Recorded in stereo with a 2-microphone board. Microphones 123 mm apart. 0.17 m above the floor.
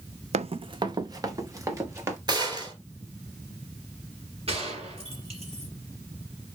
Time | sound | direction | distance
0.3 | running footsteps | 65° right (ahead or behind) | 0.5 m
2.3 | a gunshot | 35° right (ahead or behind) | 3.5 m
4.5 | a gunshot | 55° right (ahead or behind) | 4 m